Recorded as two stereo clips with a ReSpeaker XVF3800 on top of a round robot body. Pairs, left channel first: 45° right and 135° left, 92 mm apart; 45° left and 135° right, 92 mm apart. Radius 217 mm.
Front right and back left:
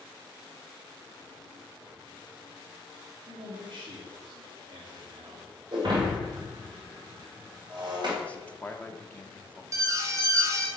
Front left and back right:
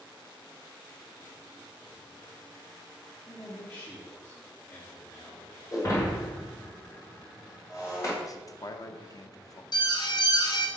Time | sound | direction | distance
3.3 | a man speaking | 120° left | 1.9 m
5.7 | breaking glass | 100° left | 2 m
8.2 | a man speaking | 25° left | 1.0 m
9.7 | an alarm | 80° left | 1.2 m